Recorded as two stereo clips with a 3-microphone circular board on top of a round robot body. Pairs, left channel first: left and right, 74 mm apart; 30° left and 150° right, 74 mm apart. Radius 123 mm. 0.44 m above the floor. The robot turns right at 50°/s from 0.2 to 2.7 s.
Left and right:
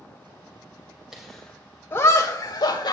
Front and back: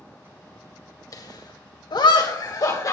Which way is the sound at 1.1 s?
5° right.